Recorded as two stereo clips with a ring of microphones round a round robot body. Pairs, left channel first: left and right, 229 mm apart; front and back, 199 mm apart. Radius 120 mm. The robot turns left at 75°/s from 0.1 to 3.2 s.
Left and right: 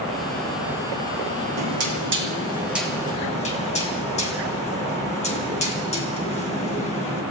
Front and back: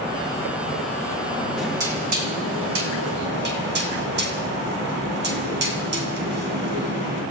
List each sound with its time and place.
1.6 s knocking: 85° right, 3 m; by 7.2 s 150° left, 3 m